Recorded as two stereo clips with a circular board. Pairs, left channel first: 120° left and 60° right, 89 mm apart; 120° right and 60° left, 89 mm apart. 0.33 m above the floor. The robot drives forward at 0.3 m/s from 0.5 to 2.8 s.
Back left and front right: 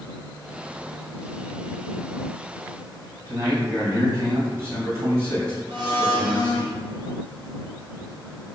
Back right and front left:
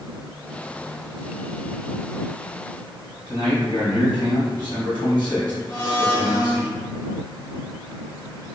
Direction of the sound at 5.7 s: 80° right.